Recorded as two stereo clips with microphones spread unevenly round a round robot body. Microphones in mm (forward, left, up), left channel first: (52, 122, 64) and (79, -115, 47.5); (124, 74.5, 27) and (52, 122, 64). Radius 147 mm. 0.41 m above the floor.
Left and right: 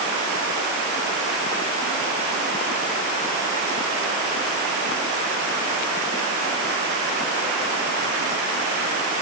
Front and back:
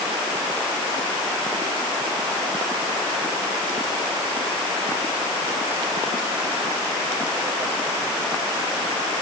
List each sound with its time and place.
Only background noise.